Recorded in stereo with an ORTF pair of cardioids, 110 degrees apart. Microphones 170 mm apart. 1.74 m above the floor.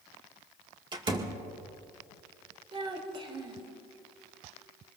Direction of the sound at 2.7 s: 35° right.